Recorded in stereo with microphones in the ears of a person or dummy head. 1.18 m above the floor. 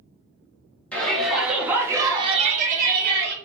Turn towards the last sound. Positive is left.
turn(degrees=-50)  # may be behind; listen again after turning